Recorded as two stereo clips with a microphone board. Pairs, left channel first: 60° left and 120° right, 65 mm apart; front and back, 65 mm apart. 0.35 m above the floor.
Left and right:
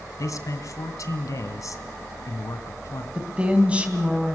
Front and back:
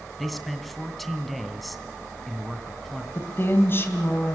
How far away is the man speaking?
About 2.5 m.